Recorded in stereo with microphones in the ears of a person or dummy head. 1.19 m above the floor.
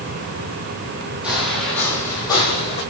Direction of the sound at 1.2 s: Centre (ahead or behind).